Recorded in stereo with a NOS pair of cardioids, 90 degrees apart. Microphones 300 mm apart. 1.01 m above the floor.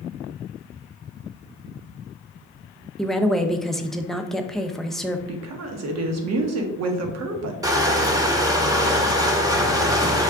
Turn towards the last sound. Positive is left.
turn(degrees=-10)